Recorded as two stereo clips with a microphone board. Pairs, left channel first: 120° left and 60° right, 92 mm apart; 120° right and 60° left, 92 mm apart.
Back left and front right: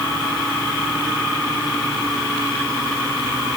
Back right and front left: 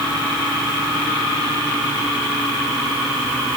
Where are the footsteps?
No footsteps in this recording.